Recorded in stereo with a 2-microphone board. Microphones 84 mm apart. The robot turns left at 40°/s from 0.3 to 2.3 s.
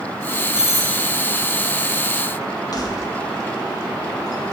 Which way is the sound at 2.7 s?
50° left (ahead or behind).